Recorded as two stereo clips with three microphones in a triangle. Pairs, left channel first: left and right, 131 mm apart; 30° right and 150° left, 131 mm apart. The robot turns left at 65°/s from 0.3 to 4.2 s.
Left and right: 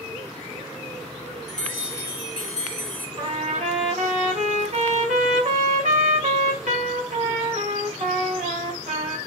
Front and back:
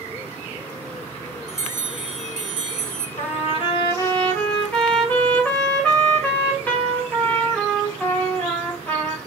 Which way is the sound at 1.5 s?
Straight behind.